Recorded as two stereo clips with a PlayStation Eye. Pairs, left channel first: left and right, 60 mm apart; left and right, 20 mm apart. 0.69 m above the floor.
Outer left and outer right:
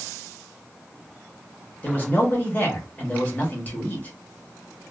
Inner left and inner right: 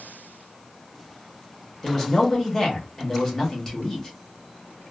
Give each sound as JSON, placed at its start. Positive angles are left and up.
{"t": 1.8, "sound": "a man speaking", "side_deg": 30, "distance_m": 1.1}